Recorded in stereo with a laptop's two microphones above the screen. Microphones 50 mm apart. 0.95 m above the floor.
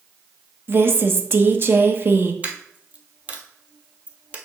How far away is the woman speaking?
About 0.8 m.